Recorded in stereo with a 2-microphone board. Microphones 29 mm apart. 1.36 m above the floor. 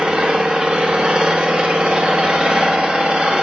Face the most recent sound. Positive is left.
turn(degrees=-35)  # may be behind; listen again after turning